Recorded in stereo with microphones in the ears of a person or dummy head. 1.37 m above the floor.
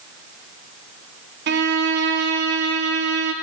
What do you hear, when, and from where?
1.5 s a violin: 55° right (ahead or behind), 0.7 m